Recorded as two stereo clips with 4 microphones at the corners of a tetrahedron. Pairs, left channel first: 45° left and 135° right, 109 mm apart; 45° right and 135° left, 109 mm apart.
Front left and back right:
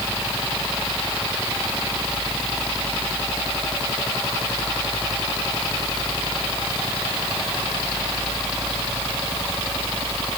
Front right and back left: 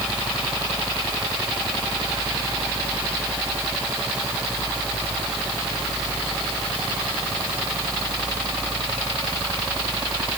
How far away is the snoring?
I don't hear snoring.